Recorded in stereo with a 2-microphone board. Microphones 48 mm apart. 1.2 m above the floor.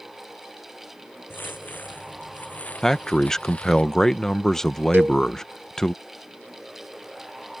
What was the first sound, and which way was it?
Footsteps, 40° left (ahead or behind).